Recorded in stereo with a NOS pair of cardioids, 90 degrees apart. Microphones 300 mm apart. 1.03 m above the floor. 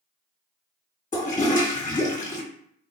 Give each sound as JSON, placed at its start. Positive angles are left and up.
{"t": 1.1, "sound": "a toilet flushing", "azimuth_deg": 30, "distance_m": 1.2}